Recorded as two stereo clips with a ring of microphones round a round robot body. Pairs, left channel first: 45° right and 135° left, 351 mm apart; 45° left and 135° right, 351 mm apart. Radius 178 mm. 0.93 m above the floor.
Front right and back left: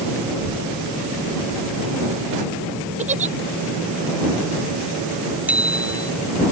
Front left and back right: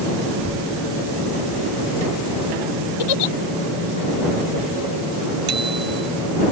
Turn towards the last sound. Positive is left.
turn(degrees=-140)